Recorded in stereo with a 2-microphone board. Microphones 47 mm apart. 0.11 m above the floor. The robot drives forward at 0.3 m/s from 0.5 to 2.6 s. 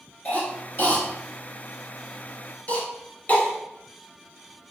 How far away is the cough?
About 1.6 m.